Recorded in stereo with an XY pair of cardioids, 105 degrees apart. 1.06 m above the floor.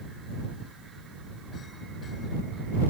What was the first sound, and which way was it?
Only background noise.